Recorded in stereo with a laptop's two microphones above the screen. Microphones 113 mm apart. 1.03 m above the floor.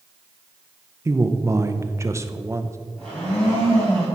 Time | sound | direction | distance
1.1 | a man speaking | 25° right (ahead or behind) | 0.6 m
3.0 | a blender | 5° left (ahead or behind) | 3.5 m